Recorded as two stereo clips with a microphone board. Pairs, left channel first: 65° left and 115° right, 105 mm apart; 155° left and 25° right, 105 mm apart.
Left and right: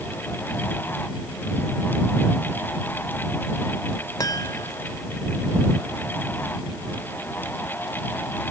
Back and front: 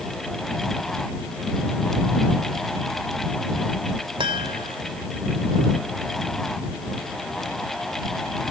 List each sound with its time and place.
4.2 s a chime: 15° left